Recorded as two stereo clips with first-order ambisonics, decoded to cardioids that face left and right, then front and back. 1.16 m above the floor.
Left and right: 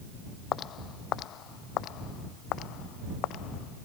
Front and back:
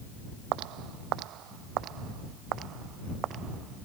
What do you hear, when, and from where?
0.5 s footsteps: 145° left; by 3.9 s 125° left